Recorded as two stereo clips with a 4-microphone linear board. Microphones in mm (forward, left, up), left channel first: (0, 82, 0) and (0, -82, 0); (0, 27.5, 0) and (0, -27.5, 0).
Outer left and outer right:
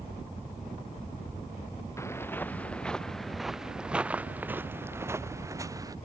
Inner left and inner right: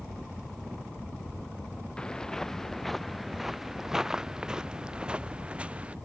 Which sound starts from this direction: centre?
Footsteps, at 2.0 s.